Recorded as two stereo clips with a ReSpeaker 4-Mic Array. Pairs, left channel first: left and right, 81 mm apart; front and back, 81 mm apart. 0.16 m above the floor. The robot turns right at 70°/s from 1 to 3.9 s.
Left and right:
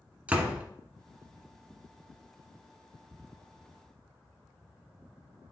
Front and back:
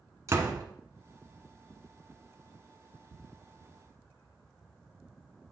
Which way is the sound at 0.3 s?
155° right.